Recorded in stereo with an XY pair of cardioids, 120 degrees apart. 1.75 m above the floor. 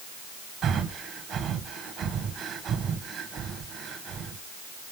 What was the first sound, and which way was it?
Breathing, 60° right.